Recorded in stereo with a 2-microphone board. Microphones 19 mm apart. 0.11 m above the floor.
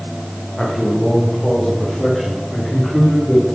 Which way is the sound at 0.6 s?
35° left (ahead or behind).